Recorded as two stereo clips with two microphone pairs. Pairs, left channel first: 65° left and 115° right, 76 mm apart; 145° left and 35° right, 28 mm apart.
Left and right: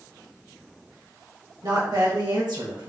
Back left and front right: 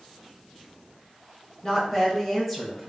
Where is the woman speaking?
150° right, 2 m; by 2.9 s 125° right, 1.7 m.